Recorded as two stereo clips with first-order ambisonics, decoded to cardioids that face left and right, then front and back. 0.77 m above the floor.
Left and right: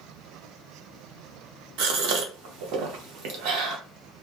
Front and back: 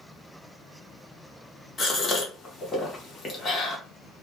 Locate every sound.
1.8 s a gasp: 70° right, 0.8 m